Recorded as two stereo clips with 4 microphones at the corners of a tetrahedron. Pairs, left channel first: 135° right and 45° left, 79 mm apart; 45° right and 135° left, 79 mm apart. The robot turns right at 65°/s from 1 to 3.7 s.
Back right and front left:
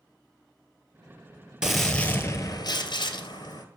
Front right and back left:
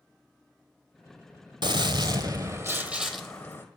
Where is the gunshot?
125° left, 0.7 m; by 3.6 s 100° right, 0.7 m.